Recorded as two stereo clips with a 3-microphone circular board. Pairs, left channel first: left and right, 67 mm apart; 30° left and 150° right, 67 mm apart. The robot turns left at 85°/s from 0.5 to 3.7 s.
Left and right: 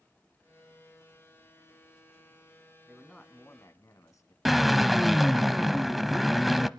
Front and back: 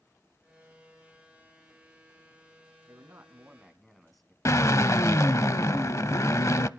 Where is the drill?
Straight ahead, 0.6 m.